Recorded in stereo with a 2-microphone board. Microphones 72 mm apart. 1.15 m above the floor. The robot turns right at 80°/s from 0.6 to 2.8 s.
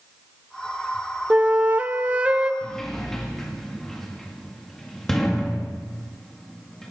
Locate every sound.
1.3 s a flute: 15° right (ahead or behind), 0.8 m
2.6 s a sliding door: 20° left (ahead or behind), 2 m; by 6.9 s 5° left (ahead or behind), 2 m